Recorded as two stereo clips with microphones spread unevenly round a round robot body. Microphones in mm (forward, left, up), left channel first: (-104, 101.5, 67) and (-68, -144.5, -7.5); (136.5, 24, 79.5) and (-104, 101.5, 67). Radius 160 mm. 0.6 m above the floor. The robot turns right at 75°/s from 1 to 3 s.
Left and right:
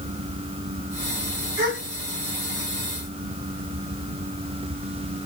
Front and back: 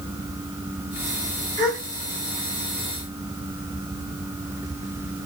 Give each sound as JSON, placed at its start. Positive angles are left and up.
{"t": 1.6, "sound": "a gasp", "azimuth_deg": -105, "distance_m": 1.6}